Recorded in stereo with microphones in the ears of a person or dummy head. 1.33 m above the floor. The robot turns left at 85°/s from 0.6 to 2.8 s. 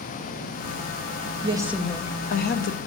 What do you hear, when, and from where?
1.4 s a woman speaking: 145° right, 0.6 m; by 2.8 s 100° left, 0.6 m